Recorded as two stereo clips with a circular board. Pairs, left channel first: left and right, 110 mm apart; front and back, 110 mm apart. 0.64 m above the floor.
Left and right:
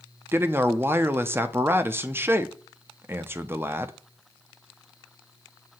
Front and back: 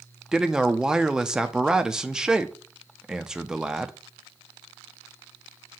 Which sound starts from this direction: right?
A man speaking, at 0.3 s.